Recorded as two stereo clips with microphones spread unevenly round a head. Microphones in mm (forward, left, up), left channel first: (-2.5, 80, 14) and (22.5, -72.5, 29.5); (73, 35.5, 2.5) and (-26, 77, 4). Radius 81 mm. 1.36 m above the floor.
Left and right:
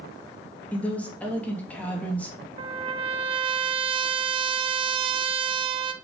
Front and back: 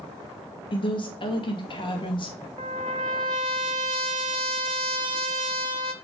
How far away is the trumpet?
About 0.7 m.